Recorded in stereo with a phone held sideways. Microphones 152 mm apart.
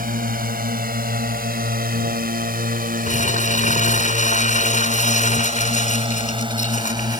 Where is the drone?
75° right (ahead or behind); by 7.2 s 30° right (ahead or behind).